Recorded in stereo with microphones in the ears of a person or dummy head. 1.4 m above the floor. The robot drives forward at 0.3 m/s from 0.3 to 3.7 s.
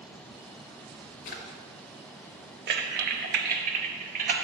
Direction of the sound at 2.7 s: 55° right (ahead or behind).